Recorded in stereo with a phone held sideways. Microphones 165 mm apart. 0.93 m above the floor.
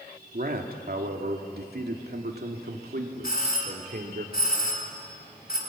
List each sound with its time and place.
0.3 s a man speaking: 60° right (ahead or behind), 2 m
3.2 s a doorbell: 65° left (ahead or behind), 3.5 m